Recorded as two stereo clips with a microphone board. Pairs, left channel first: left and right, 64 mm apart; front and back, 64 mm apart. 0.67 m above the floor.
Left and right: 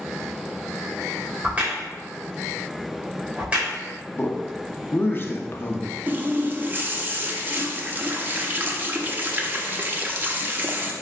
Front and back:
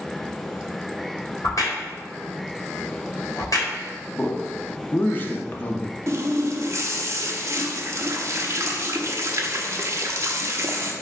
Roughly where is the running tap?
Behind right.